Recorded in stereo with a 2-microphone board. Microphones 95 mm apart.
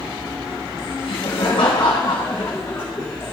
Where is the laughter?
70° left (ahead or behind), 1.1 m; by 3.3 s 20° left (ahead or behind), 1.7 m.